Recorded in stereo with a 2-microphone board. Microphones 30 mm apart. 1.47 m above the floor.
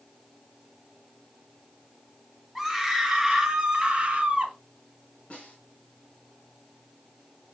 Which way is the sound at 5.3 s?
35° left (ahead or behind).